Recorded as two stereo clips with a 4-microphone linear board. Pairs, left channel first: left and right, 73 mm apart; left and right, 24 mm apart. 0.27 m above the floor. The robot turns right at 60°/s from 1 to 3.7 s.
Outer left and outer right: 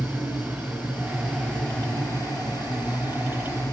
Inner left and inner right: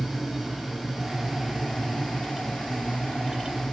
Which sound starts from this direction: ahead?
An insect, at 0.0 s.